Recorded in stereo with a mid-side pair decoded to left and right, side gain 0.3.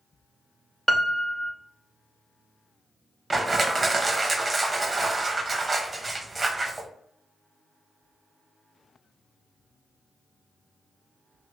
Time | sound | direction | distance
0.9 | a piano | 15° left | 0.8 m
3.3 | crushing | 35° right | 0.7 m